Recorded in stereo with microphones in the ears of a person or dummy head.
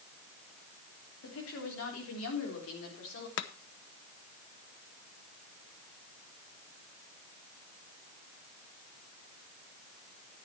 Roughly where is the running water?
I don't hear running water.